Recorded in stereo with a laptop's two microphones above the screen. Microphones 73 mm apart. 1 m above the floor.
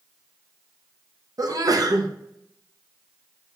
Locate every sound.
1.4 s a sneeze: 55° right (ahead or behind), 0.6 m